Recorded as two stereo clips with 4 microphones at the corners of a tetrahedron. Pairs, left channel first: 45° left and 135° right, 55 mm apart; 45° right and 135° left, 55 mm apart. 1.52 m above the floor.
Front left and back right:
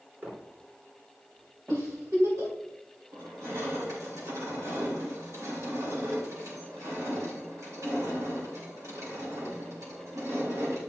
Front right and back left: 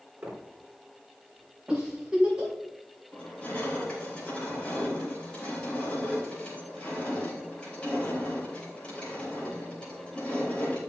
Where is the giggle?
150° right, 5 m.